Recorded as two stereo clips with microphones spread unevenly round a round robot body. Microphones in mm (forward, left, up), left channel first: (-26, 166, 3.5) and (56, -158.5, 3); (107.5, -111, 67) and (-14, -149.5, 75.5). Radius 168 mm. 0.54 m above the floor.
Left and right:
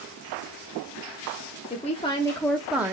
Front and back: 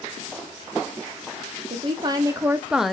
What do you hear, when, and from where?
1.7 s a woman speaking: 165° left, 0.8 m; by 2.9 s 40° right, 0.6 m